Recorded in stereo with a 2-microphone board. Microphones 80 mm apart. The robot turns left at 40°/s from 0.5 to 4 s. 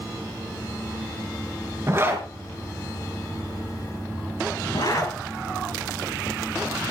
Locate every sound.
1.9 s a zipper: 35° right (ahead or behind), 3.5 m; by 5.1 s 50° left (ahead or behind), 3.5 m